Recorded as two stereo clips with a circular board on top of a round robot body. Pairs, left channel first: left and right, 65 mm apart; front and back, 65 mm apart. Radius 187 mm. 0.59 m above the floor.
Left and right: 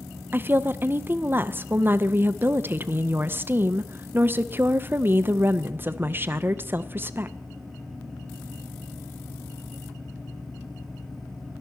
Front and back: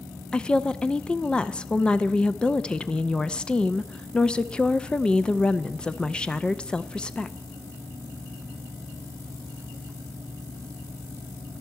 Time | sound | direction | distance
0.3 | a woman speaking | 65° right | 0.7 m